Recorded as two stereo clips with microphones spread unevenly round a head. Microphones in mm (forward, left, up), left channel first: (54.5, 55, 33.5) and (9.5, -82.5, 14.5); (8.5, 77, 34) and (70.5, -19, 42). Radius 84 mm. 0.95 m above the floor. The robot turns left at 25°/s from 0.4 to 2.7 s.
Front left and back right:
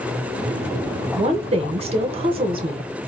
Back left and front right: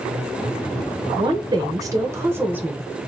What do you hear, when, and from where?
1.2 s a woman speaking: 95° right, 0.7 m; by 2.9 s 135° right, 0.7 m